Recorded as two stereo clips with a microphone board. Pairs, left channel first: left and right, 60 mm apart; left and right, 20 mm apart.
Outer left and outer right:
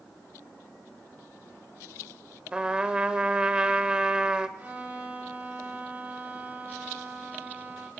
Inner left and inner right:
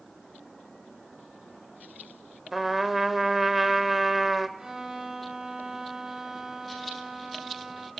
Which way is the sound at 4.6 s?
30° right (ahead or behind).